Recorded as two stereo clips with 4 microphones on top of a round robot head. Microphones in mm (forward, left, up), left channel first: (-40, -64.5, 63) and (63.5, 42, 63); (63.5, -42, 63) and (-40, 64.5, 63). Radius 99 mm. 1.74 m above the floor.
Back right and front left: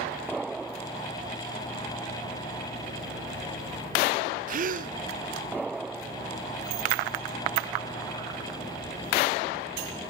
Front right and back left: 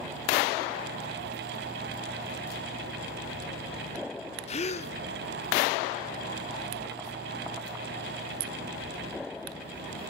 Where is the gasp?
5° left, 0.5 m.